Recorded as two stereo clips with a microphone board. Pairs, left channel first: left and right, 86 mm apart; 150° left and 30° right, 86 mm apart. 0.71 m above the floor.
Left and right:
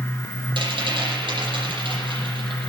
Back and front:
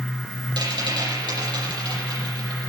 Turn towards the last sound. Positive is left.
turn(degrees=-65)